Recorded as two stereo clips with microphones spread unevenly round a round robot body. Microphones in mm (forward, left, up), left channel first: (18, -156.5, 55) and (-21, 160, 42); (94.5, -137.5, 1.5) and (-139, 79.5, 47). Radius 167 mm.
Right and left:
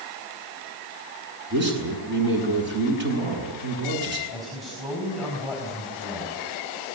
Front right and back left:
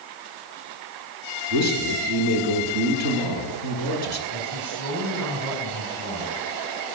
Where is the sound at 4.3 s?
175° right, 5 m.